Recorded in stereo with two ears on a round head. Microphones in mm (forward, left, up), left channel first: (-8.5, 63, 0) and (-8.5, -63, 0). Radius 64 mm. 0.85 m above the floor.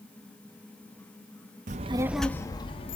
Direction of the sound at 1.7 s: 55° right (ahead or behind).